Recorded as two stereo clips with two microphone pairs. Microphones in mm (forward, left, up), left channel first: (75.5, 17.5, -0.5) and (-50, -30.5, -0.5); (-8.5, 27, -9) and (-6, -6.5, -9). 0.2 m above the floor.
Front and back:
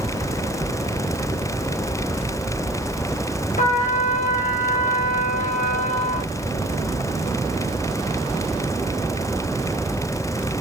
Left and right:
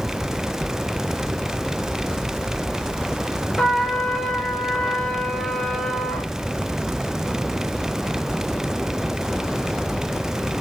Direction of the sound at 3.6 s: 15° left.